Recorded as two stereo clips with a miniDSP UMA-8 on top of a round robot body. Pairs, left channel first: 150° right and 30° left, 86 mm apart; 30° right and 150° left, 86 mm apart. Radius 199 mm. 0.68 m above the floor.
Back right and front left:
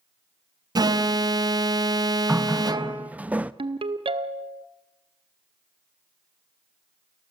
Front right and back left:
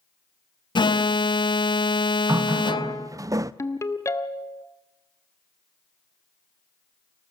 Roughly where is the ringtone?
Ahead left.